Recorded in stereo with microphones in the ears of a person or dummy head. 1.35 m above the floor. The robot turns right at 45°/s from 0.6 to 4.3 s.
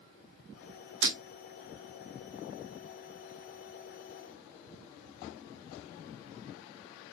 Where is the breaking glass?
60° right (ahead or behind), 2 m; by 1.2 s 70° right (ahead or behind), 2 m.